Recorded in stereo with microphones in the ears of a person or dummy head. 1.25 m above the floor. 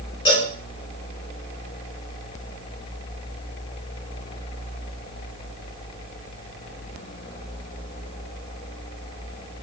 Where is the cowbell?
25° left (ahead or behind), 2.5 m.